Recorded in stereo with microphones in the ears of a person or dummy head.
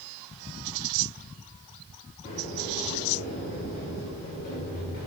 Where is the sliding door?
45° left (ahead or behind), 2 m.